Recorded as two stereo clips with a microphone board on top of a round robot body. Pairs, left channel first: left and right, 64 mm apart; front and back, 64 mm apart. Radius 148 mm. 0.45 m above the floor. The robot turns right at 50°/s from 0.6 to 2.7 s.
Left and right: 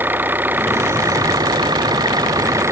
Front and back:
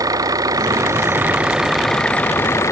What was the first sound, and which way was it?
An engine running, 150° right.